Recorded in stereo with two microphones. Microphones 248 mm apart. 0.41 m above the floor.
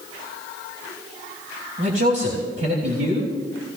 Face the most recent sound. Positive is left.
turn(degrees=-65)  # may be behind; listen again after turning